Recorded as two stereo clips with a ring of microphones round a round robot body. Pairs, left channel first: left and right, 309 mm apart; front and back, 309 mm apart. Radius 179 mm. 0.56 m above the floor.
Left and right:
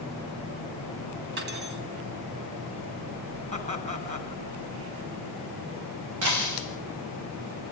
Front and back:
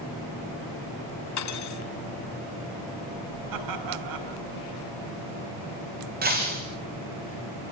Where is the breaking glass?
120° right, 6 m.